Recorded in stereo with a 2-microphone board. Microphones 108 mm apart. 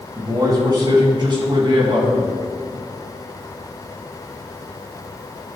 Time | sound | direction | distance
0.1 | a man speaking | 35° right (ahead or behind) | 2.5 m